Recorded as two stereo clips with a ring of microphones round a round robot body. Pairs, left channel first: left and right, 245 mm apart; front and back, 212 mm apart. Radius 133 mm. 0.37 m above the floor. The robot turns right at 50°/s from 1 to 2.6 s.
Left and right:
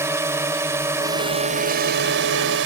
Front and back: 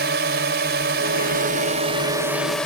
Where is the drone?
165° right; by 2.7 s 85° right.